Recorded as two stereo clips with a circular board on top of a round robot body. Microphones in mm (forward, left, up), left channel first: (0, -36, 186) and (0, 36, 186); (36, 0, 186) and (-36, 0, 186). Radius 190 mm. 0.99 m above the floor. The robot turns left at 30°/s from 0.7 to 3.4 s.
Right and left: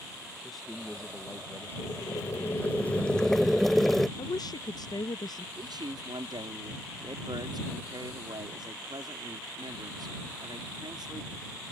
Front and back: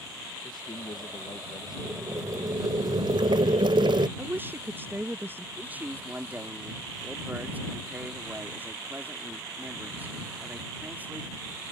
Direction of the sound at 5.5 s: 110° left.